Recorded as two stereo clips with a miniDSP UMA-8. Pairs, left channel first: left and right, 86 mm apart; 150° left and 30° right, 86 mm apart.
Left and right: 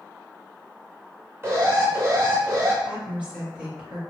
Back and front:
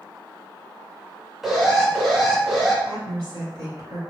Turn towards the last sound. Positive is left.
turn(degrees=-20)